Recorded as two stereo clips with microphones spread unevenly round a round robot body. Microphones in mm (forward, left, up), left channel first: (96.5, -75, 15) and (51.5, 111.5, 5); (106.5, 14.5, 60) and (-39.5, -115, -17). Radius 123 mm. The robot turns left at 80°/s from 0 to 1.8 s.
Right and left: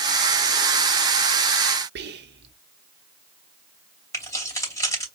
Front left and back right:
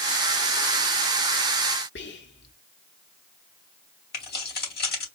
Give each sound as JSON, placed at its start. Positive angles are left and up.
{"t": 1.9, "sound": "whispering", "azimuth_deg": 90, "distance_m": 0.9}
{"t": 4.1, "sound": "keys jangling", "azimuth_deg": 0, "distance_m": 2.5}